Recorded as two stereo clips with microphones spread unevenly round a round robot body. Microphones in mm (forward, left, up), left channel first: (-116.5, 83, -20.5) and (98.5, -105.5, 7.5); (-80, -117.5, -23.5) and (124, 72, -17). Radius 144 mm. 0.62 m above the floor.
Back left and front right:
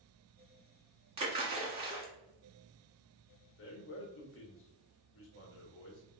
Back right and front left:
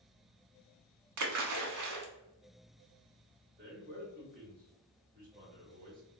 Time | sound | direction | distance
1.2 | a splash | 25° left | 0.9 m
3.6 | a man speaking | 105° left | 1.1 m